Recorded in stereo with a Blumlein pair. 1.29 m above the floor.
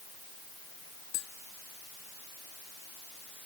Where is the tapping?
40° left.